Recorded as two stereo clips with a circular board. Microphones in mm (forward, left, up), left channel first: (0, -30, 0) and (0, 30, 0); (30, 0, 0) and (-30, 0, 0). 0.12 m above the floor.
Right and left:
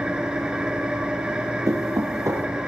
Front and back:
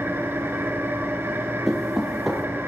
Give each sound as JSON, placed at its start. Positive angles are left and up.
{"t": 0.0, "sound": "an engine running", "azimuth_deg": 155, "distance_m": 1.7}
{"t": 1.7, "sound": "knocking", "azimuth_deg": 95, "distance_m": 3.0}